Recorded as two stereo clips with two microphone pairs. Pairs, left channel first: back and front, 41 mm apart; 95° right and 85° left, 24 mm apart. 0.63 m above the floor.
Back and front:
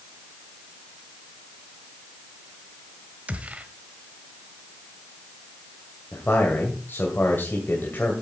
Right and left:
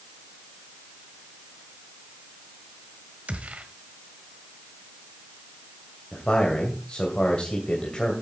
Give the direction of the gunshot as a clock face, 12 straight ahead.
10 o'clock.